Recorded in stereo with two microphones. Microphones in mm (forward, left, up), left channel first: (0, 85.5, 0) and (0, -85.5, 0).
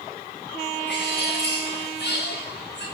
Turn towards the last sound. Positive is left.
turn(degrees=85)